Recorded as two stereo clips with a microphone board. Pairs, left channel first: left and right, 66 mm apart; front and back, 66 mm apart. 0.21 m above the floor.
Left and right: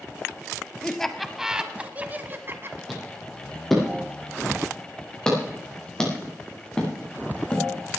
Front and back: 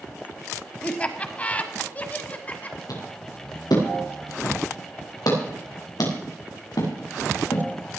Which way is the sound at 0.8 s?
30° left.